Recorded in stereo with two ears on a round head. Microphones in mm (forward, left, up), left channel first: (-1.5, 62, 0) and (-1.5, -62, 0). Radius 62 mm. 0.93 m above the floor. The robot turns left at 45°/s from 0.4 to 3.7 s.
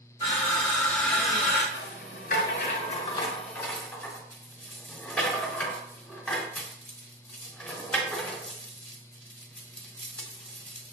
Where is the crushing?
40° left, 2 m; by 1.6 s 20° right, 2 m.